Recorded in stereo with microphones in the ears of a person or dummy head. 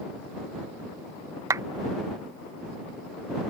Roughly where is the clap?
Centre.